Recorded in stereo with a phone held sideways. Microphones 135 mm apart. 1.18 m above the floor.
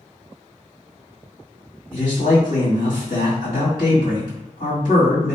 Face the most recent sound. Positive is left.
turn(degrees=75)  # may be behind; listen again after turning